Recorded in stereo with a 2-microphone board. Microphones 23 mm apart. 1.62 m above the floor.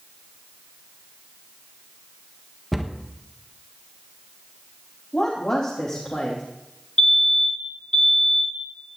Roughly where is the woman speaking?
Left.